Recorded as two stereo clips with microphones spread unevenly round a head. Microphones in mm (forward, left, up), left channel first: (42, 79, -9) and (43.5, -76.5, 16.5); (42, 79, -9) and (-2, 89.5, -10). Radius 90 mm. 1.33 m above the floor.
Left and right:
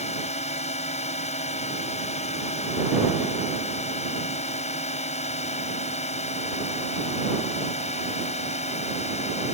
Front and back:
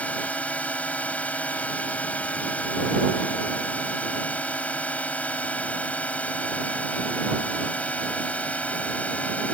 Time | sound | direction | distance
0.0 | a drone | 45° left | ?